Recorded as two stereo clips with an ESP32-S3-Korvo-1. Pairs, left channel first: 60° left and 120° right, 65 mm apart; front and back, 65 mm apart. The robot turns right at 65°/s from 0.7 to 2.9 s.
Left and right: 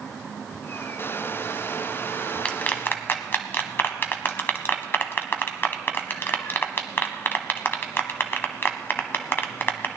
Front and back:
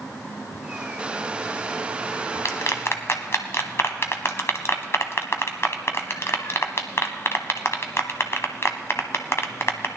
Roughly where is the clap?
Ahead.